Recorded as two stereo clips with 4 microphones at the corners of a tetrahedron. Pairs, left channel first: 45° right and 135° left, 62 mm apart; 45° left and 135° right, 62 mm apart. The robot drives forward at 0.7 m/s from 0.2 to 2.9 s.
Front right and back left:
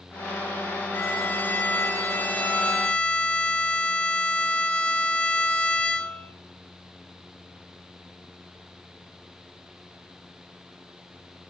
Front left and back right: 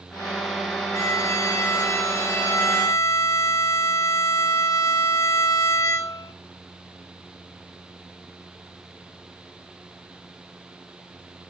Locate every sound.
0.9 s a violin: 10° left, 3 m; by 6.3 s 20° left, 1.5 m